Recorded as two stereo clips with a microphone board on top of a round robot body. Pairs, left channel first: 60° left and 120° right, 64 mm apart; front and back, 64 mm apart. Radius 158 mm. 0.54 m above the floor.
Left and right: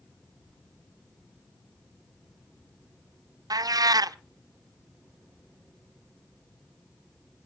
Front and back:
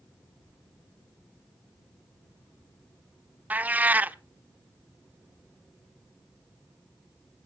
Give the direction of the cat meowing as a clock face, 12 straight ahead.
4 o'clock.